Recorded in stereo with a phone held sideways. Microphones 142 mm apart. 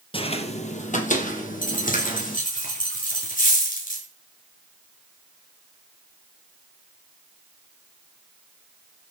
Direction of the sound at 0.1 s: 40° left (ahead or behind).